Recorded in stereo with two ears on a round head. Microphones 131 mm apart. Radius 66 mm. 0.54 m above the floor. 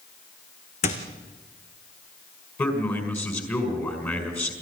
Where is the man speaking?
20° left (ahead or behind), 5 m.